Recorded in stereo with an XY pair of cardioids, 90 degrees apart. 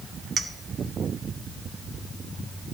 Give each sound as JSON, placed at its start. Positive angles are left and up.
{"t": 0.4, "sound": "a clink", "azimuth_deg": -35, "distance_m": 0.9}